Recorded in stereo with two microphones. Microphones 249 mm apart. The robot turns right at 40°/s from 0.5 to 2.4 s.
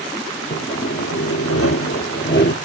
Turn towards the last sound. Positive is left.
turn(degrees=130)